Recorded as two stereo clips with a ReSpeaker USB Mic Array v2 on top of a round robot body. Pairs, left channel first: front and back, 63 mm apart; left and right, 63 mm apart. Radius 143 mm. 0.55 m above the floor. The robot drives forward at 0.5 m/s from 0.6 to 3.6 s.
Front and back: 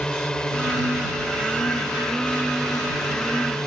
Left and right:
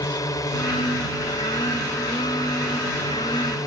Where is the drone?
80° left.